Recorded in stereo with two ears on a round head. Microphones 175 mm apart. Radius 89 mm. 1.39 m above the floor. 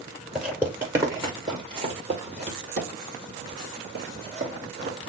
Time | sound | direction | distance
0.3 | footsteps | centre (ahead or behind) | 1.7 m